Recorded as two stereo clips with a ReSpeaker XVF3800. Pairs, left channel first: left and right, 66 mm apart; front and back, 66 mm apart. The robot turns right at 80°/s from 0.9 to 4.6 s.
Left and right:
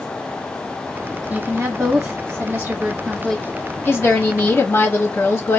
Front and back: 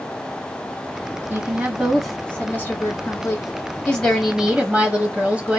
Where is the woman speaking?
140° right, 1.2 m; by 5.6 s 120° left, 1.2 m.